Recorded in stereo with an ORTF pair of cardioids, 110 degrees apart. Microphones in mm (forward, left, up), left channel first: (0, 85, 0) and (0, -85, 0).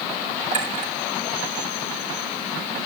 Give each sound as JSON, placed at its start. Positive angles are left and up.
{"t": 0.5, "sound": "a clink", "azimuth_deg": -45, "distance_m": 4.0}